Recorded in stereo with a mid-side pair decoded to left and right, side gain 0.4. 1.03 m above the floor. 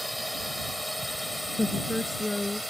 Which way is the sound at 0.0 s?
Straight ahead.